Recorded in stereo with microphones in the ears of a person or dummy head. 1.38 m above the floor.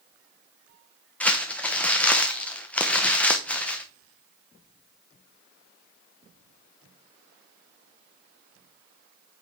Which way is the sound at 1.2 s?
5° left (ahead or behind).